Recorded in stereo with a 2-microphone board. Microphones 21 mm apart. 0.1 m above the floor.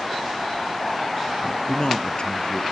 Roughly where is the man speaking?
Left.